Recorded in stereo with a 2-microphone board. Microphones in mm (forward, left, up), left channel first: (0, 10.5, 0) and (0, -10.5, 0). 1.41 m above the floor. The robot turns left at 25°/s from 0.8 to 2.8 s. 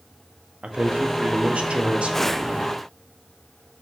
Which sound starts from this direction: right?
A man speaking, at 0.6 s.